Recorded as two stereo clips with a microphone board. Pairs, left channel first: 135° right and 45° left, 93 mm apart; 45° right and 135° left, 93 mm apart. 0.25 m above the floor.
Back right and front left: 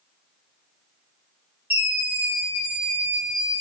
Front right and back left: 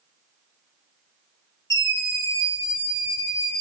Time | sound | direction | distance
1.7 | a scream | 10° right | 1.7 m